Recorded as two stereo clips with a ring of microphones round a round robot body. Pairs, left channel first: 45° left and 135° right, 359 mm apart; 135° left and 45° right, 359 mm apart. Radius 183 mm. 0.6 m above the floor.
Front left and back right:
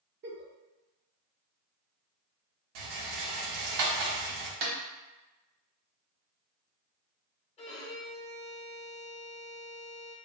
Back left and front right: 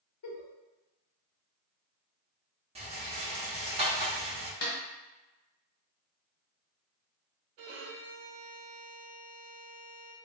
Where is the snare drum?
160° right, 1.0 m.